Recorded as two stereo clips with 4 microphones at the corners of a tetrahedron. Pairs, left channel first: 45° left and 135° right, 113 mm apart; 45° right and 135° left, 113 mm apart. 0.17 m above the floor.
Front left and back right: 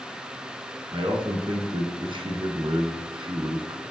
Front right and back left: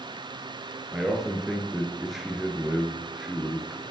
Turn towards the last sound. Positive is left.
turn(degrees=-140)